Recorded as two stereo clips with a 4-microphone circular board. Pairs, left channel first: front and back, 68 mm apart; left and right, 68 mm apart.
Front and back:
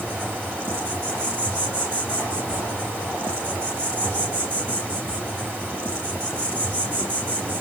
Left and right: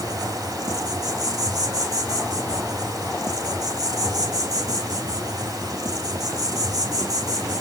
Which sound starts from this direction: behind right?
An insect, at 0.0 s.